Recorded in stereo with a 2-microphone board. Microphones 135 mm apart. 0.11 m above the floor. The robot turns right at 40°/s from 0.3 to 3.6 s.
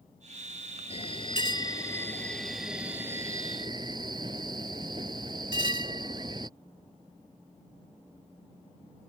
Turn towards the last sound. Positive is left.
turn(degrees=-140)